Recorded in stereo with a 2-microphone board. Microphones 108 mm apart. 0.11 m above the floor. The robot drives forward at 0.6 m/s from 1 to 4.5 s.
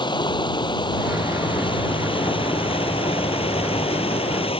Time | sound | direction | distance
0.0 | running water | 45° left (ahead or behind) | ?